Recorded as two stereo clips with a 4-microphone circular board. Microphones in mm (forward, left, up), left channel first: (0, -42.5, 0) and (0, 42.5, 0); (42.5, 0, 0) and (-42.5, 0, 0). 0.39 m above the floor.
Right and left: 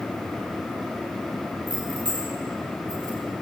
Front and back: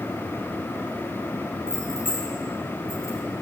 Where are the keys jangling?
60° left, 4 m; by 3.2 s 45° left, 5 m.